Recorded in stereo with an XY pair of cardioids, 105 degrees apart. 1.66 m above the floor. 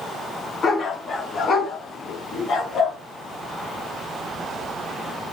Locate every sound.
0.6 s a dog barking: 45° left, 5 m; by 3.0 s 75° left, 4 m